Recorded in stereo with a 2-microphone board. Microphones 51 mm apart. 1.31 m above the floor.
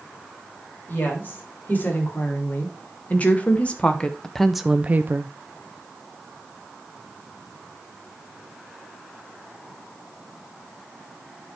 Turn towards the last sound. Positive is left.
turn(degrees=-55)  # may be behind; listen again after turning